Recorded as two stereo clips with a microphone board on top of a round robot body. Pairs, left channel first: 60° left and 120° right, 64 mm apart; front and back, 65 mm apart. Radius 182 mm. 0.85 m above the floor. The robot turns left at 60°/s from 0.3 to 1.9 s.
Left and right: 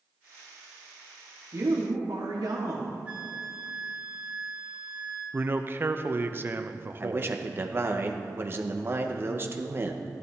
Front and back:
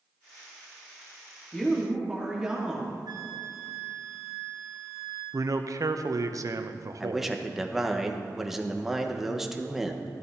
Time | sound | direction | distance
1.5 | a woman speaking | 75° right | 1.6 m
3.1 | a flute | 175° left | 0.7 m
5.3 | a man speaking | 170° right | 0.8 m
7.0 | a man speaking | 95° right | 1.2 m